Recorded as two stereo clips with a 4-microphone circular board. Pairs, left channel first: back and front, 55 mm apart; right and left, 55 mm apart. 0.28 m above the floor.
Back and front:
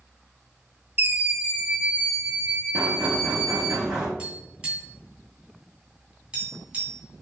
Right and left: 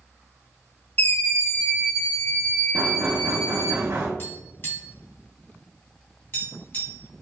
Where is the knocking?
75° left, 1.1 m.